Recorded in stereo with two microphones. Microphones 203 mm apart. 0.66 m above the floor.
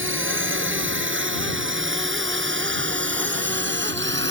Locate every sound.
0.0 s a drone: 80° right; by 4.3 s 65° right (ahead or behind)